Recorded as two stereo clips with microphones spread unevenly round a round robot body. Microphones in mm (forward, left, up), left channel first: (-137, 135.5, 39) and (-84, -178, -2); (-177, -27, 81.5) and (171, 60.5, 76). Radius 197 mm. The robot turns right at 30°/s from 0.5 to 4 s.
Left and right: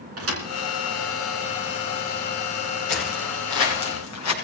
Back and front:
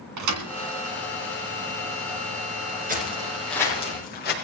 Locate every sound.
0.2 s a thud: 25° right, 2.5 m
2.9 s footsteps: 80° left, 6 m; by 4.3 s 130° left, 6 m